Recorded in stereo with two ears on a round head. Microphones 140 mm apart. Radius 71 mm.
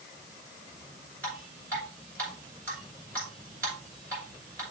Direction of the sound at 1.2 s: 15° left (ahead or behind).